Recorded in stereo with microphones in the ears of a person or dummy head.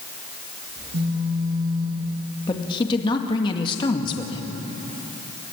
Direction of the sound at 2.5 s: 25° left (ahead or behind).